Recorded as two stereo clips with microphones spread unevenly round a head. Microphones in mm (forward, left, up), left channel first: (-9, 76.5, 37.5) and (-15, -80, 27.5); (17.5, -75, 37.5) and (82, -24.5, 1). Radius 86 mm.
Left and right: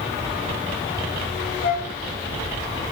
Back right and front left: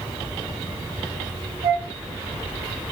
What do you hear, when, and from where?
1.6 s a flute: 70° left, 1.3 m